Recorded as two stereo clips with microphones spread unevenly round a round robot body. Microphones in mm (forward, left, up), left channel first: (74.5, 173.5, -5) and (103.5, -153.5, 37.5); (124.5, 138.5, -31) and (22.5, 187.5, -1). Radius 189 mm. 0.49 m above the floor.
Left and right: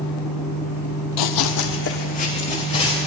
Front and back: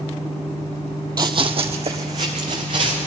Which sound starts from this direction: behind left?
Running footsteps, at 1.2 s.